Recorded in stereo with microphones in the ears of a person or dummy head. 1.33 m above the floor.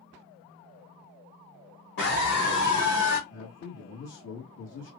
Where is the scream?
55° left (ahead or behind), 2.5 m; by 3.2 s 70° left (ahead or behind), 2.5 m.